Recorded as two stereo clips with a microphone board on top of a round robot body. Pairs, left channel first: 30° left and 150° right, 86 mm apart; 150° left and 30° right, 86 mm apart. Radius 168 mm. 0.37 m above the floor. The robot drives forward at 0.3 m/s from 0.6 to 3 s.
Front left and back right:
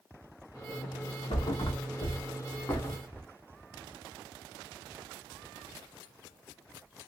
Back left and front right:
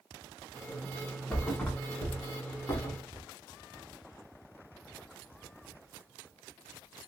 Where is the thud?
70° left, 0.9 m; by 3.2 s 105° left, 0.9 m.